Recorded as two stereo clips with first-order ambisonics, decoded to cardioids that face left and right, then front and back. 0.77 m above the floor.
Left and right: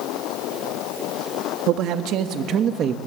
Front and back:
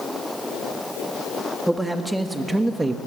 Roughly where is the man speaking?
Right.